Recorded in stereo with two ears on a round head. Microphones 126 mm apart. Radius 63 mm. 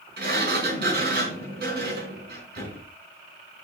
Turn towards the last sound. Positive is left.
turn(degrees=-80)